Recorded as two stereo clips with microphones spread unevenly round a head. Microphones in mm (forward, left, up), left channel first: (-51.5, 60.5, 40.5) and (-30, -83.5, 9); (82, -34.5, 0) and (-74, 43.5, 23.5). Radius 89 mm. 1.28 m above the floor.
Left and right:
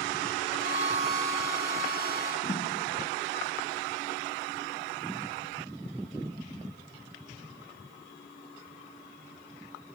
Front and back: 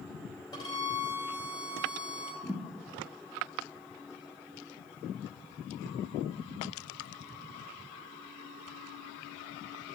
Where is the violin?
45° left, 2.5 m.